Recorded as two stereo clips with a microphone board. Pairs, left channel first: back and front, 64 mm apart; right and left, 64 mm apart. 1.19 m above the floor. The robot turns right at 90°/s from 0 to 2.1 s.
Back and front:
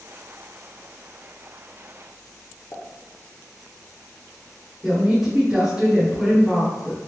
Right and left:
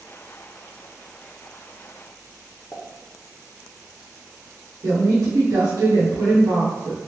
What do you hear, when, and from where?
2.7 s a pop: 145° right, 0.5 m
4.8 s a woman speaking: 80° left, 1.0 m